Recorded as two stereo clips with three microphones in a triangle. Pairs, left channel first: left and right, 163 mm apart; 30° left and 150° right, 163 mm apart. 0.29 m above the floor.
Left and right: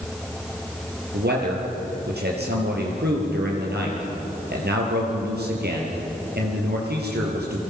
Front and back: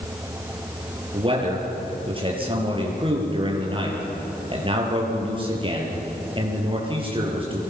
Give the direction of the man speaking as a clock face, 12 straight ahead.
3 o'clock.